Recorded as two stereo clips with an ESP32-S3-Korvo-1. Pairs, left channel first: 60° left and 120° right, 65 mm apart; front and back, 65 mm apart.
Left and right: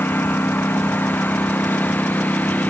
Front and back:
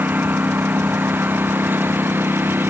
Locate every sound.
0.0 s a lawn mower: 120° left; by 2.7 s 125° left